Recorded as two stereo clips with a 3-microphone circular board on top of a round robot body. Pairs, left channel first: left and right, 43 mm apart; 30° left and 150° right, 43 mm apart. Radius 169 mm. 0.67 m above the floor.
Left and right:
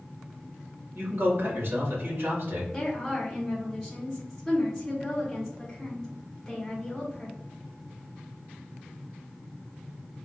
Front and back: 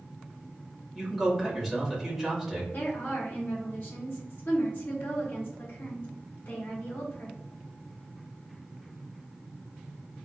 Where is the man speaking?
60° right, 2.0 m.